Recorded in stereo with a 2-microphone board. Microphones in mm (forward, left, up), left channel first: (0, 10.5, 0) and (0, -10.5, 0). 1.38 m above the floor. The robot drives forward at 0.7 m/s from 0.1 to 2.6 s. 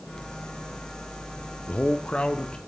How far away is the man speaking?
About 0.7 m.